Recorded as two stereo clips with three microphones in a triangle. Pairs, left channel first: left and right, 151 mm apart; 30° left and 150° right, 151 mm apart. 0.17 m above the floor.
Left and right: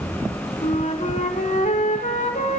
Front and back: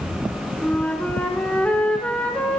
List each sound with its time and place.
0.6 s a flute: 110° left, 0.7 m